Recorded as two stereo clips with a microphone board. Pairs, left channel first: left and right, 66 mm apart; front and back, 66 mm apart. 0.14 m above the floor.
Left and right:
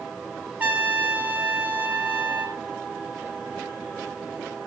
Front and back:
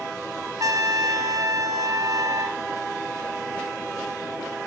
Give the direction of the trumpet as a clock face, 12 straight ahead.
5 o'clock.